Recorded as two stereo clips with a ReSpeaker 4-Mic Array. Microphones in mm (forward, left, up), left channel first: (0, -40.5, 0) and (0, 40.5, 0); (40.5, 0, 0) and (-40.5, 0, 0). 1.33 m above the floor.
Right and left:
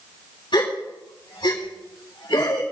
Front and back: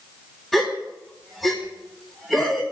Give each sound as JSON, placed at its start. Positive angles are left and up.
{"t": 0.5, "sound": "a gasp", "azimuth_deg": -90, "distance_m": 6.5}